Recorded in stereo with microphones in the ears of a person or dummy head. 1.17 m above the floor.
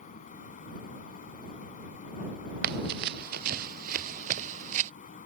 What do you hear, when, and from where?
0.0 s a fan: 40° left (ahead or behind)
2.6 s running footsteps: 55° right (ahead or behind); by 4.9 s 35° right (ahead or behind)